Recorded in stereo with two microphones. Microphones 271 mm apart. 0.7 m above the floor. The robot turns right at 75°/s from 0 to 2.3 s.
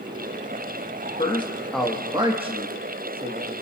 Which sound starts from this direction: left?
A man speaking, at 1.2 s.